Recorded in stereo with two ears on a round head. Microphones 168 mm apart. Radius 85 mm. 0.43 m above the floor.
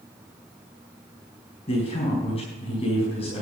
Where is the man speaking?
35° left (ahead or behind), 4.5 m.